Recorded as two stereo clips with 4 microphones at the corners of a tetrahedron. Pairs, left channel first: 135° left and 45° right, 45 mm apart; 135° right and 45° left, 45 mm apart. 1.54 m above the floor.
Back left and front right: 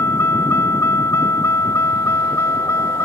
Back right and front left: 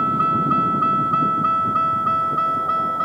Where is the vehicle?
110° left; by 3.1 s 140° left.